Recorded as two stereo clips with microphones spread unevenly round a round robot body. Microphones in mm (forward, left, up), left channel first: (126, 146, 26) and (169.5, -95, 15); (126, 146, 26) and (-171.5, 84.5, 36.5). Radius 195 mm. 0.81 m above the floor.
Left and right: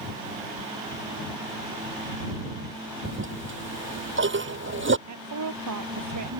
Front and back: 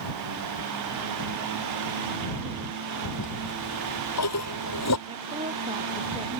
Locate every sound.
3.0 s a toilet flushing: 40° right
5.1 s a woman speaking: 90° right